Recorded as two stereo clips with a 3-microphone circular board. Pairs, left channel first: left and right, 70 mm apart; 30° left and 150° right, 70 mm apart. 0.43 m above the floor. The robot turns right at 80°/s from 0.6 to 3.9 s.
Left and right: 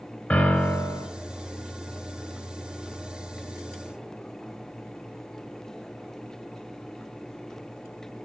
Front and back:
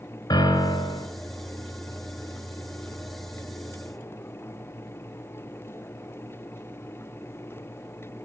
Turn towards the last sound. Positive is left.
turn(degrees=-75)